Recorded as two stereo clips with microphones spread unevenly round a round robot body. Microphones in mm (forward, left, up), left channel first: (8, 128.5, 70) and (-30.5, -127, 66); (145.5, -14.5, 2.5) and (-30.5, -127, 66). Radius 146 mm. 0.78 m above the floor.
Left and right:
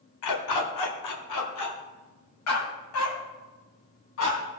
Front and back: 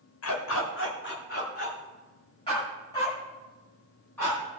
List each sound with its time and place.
0.2 s a dog barking: 65° left, 1.3 m; by 4.6 s 120° left, 3.5 m